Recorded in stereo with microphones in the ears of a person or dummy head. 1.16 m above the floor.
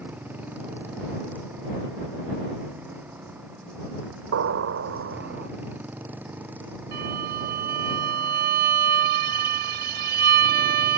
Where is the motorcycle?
15° right (ahead or behind).